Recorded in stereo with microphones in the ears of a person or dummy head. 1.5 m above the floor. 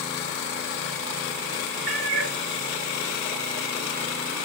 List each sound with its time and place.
1.9 s a cat meowing: 60° right (ahead or behind), 1.6 m